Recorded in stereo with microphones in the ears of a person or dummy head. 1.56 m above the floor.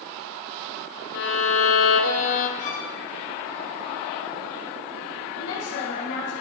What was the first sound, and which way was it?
A violin, 65° left (ahead or behind).